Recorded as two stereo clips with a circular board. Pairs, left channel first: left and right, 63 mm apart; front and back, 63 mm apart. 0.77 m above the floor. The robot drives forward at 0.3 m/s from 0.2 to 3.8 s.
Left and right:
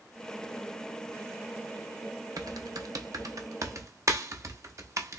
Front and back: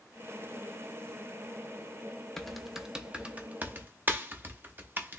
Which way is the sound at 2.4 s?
85° right.